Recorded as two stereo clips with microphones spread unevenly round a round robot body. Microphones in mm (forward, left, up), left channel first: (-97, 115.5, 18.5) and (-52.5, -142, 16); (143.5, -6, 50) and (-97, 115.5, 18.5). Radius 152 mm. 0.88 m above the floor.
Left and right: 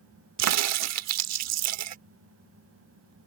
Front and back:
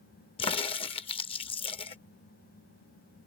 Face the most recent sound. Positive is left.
turn(degrees=-95)